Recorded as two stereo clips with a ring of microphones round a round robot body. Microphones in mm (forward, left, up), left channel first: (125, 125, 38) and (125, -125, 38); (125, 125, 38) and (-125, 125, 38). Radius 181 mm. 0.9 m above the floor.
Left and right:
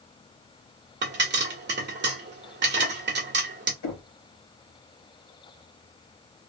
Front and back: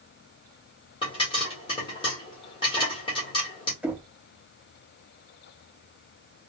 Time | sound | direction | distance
1.0 | a pop | 65° right | 1.3 m
3.8 | knocking | 95° left | 1.1 m